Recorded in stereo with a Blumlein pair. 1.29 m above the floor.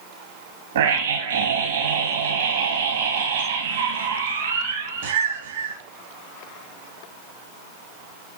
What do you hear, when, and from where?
0.8 s a scream: 60° right, 2.5 m